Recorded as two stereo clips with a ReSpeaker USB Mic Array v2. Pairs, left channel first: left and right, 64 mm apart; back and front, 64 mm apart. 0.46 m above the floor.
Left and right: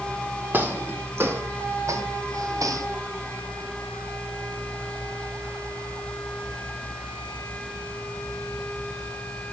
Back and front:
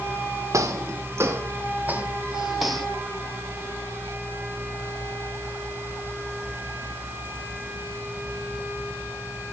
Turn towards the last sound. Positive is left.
turn(degrees=-100)